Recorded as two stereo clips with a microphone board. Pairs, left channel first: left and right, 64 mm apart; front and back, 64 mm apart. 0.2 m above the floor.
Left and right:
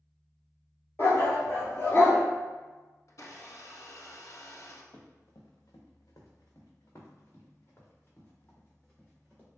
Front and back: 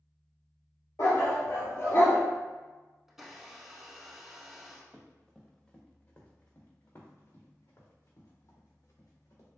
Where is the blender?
95° left, 0.7 m.